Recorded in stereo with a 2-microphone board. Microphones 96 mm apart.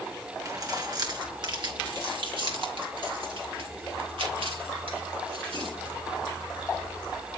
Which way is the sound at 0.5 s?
40° right (ahead or behind).